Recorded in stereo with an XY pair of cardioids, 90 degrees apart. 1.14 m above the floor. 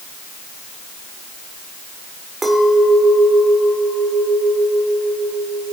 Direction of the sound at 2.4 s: 25° right.